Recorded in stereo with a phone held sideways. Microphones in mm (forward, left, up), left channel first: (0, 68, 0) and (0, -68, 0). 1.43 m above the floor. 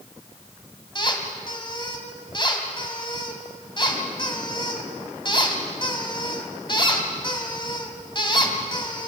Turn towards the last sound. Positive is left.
turn(degrees=35)  # may be behind; listen again after turning